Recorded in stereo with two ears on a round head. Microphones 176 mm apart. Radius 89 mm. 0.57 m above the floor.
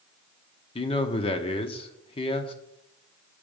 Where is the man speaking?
30° left (ahead or behind), 0.8 m.